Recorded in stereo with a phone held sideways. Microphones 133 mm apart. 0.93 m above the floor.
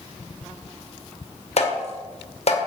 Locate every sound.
1.6 s tapping: 55° left (ahead or behind), 2 m